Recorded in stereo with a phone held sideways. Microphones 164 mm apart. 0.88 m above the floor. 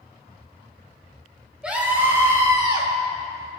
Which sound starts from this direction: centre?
A scream, at 1.6 s.